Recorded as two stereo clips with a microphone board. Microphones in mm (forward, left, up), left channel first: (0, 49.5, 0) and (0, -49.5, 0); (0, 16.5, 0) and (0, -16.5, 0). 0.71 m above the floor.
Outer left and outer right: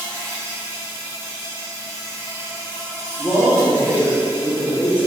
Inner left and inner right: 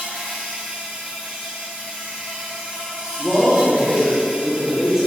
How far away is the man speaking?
About 1.0 m.